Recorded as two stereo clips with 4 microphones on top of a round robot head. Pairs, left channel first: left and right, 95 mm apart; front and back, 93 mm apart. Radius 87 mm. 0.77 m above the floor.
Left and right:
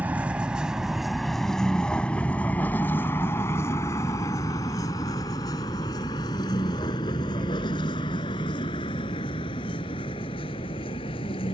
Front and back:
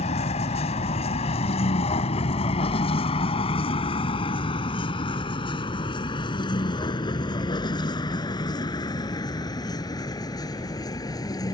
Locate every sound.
0.0 s a vehicle: 10° right; by 11.5 s 45° left